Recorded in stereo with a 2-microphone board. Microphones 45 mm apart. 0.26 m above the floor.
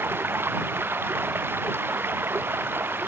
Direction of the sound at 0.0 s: 55° right (ahead or behind).